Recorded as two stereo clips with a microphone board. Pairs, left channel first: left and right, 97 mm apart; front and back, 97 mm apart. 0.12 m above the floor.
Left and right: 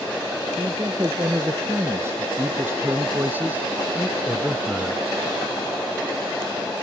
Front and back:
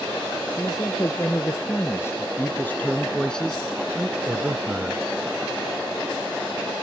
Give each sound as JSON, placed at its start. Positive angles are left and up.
{"t": 0.5, "sound": "a man speaking", "azimuth_deg": -35}